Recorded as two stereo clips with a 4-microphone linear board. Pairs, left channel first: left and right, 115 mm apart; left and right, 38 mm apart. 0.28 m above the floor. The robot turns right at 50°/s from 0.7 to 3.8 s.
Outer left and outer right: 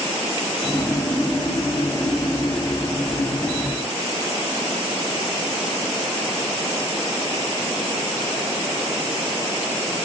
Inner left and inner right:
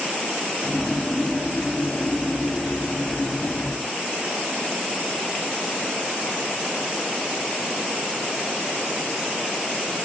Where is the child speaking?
I don't hear a child speaking.